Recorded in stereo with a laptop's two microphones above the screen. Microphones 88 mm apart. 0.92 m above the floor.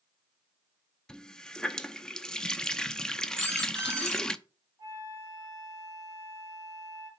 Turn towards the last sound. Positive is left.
turn(degrees=-45)  # may be behind; listen again after turning